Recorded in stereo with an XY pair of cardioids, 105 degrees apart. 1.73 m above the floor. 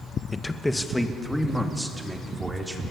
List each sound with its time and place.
0.3 s a man speaking: 20° left, 1.8 m; by 2.8 s 15° right, 5 m